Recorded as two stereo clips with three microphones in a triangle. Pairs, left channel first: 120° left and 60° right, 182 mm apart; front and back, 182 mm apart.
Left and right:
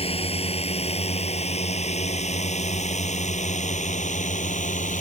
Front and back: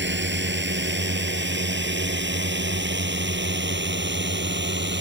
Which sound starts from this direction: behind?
A drone, at 0.0 s.